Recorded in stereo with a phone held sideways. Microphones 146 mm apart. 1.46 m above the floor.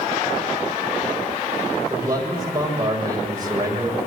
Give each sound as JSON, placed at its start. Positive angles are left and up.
{"t": 1.9, "sound": "a man speaking", "side_deg": -25, "distance_m": 7.5}